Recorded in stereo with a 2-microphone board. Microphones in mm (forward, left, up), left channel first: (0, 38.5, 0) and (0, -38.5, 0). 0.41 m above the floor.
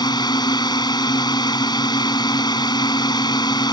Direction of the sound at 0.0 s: 70° left (ahead or behind).